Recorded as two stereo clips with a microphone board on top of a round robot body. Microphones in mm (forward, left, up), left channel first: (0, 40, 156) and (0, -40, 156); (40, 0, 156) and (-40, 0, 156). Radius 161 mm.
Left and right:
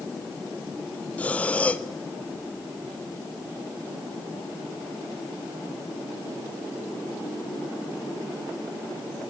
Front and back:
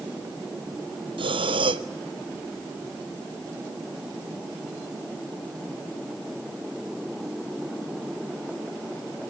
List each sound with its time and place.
1.2 s breathing: 165° left, 1.0 m